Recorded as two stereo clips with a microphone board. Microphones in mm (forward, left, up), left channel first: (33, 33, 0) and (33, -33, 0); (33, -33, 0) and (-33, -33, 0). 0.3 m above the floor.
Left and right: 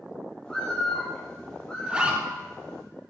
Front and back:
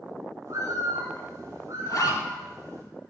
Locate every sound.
0.5 s a bird: 165° left, 5.5 m
1.9 s a zipper: 15° right, 3 m